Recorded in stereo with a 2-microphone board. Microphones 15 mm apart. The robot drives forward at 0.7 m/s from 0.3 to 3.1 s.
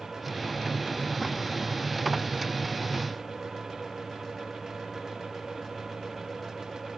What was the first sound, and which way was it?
Only background noise.